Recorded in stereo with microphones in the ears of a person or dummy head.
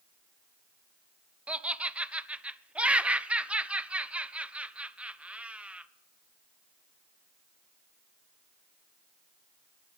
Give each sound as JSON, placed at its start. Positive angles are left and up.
{"t": 1.5, "sound": "laughter", "side_deg": -5, "distance_m": 0.5}